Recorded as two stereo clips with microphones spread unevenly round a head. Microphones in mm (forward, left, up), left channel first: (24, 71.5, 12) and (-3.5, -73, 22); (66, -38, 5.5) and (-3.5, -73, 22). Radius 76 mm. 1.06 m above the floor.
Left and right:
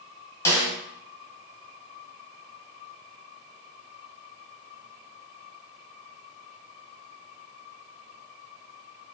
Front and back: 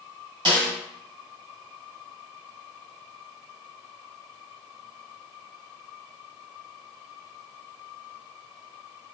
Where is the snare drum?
155° left, 2.5 m.